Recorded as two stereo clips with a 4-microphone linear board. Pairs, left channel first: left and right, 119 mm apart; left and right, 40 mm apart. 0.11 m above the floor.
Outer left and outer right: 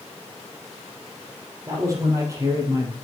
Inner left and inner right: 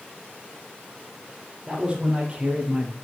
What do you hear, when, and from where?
1.7 s a man speaking: 25° right (ahead or behind), 4 m; by 2.9 s 30° right (ahead or behind), 2.5 m